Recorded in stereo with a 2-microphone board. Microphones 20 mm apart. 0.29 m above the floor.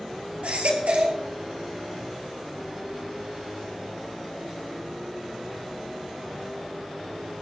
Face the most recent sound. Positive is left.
turn(degrees=-80)